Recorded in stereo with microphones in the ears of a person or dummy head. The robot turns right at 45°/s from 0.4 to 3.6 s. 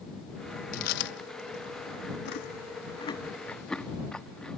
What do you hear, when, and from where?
0.7 s chewing: 45° left (ahead or behind); by 4.6 s 5° left (ahead or behind)